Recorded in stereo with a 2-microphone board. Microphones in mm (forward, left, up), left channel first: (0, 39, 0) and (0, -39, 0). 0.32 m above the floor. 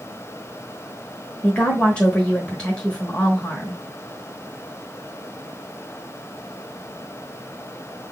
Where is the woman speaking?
15° left (ahead or behind), 1.0 m.